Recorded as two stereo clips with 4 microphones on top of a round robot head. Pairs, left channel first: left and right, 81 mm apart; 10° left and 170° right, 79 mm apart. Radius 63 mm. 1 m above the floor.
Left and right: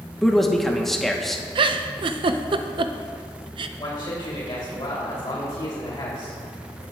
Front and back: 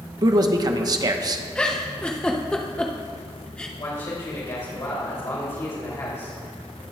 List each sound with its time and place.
0.2 s a man speaking: 175° left, 0.9 m
1.6 s a giggle: 70° right, 0.6 m
3.8 s a man speaking: 45° left, 2.5 m